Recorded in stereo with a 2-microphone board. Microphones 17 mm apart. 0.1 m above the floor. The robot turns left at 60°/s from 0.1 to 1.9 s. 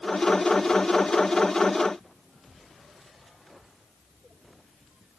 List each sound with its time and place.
Only background noise.